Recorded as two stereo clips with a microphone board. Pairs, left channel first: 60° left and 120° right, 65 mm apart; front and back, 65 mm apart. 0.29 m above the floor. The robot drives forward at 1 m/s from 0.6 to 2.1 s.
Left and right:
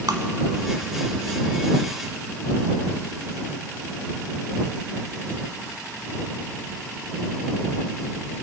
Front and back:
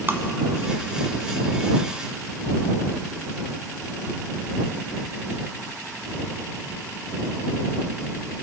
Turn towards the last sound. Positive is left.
turn(degrees=-160)